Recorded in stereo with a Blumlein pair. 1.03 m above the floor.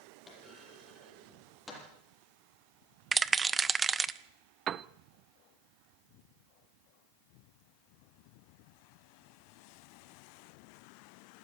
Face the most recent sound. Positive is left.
turn(degrees=-25)